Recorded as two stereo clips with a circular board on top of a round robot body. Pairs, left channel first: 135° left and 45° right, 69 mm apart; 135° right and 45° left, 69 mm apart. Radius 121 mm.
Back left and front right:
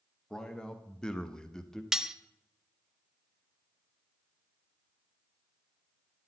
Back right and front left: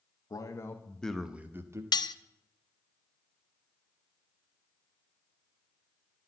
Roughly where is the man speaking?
Behind right.